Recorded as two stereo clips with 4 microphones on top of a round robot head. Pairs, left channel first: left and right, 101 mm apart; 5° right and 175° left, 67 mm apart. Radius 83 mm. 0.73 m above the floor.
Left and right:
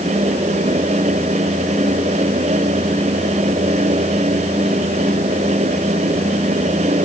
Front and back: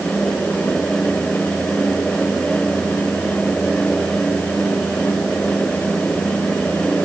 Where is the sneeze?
I don't hear a sneeze.